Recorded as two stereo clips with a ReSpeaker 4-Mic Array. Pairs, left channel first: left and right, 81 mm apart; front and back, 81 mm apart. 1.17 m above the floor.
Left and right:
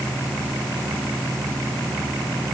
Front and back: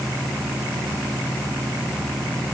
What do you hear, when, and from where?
Only background noise.